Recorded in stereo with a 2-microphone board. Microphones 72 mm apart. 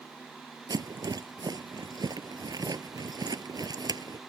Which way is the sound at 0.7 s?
65° right (ahead or behind).